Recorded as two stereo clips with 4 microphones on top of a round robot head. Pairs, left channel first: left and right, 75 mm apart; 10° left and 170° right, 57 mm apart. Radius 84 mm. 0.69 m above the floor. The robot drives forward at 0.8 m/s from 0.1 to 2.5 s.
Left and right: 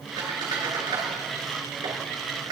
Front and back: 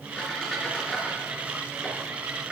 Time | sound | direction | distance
0.2 | a squeak | 70° right | 4.5 m